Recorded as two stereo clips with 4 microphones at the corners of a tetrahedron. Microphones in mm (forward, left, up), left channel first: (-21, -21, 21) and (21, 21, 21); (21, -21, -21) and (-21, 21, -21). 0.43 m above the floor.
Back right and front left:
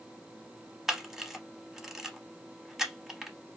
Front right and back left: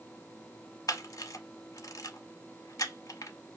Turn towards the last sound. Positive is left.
turn(degrees=-40)